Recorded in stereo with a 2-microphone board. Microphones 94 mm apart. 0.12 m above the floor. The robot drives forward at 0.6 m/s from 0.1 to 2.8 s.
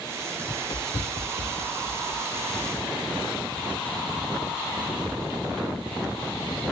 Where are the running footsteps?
40° left (ahead or behind), 0.5 m; by 6.3 s 85° left, 4 m.